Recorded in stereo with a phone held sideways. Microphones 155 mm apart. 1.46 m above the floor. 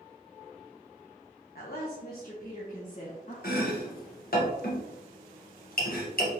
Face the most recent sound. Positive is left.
turn(degrees=70)  # may be behind; listen again after turning